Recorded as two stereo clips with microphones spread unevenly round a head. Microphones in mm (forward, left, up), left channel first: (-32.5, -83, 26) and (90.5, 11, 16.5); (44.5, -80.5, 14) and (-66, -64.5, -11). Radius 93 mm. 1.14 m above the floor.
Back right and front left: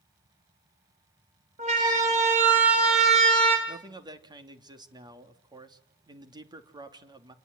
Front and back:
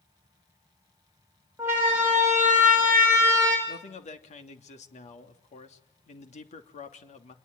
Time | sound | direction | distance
1.6 | a siren | 90° left | 6 m
3.7 | a man speaking | 25° right | 3 m